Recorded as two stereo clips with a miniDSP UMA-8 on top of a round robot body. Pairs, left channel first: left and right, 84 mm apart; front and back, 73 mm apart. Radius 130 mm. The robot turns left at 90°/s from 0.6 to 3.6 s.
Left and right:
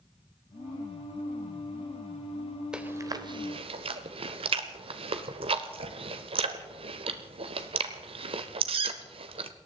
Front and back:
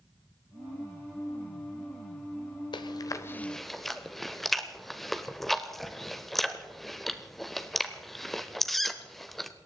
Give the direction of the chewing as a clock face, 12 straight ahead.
12 o'clock.